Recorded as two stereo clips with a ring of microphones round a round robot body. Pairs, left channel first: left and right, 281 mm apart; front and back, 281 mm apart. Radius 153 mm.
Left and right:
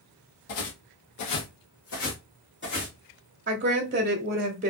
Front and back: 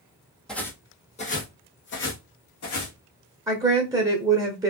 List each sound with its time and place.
0.5 s footsteps: 90° left, 1.0 m; by 3.0 s 35° left, 1.8 m
3.5 s a woman speaking: 115° right, 0.9 m